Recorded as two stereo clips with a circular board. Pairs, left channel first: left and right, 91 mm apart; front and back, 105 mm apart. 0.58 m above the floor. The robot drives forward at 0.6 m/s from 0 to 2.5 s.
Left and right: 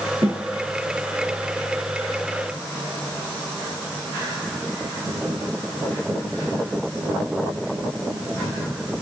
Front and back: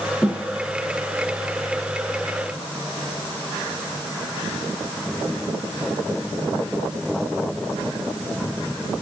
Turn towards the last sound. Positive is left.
turn(degrees=-90)